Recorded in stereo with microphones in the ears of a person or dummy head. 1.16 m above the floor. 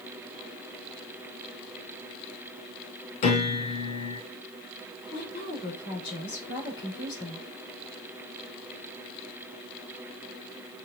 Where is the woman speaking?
30° left (ahead or behind), 3 m.